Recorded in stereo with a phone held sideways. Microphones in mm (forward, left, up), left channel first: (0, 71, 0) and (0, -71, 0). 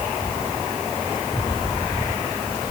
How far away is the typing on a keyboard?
I don't hear typing on a keyboard.